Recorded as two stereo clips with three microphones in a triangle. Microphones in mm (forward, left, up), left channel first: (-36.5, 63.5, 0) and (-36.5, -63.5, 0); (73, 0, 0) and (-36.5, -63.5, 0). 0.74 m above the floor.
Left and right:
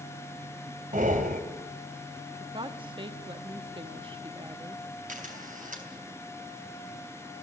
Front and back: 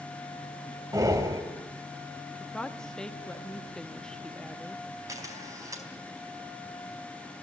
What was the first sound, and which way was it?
Breathing, 85° right.